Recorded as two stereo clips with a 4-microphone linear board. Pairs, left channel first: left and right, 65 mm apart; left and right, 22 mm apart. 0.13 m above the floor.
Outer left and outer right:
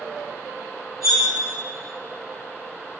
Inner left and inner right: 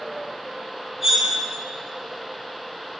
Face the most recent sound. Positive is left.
turn(degrees=0)  # may be behind; listen again after turning